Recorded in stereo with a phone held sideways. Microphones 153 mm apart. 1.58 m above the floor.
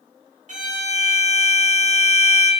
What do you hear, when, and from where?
0.5 s a violin: 50° right (ahead or behind), 0.7 m